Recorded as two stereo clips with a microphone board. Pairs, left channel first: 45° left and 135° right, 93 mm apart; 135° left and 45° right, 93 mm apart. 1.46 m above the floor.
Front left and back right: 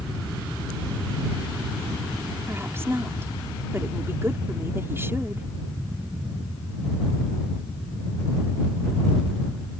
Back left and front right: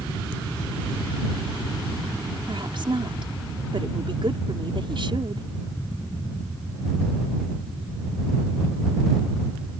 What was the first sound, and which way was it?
A woman speaking, 70° right.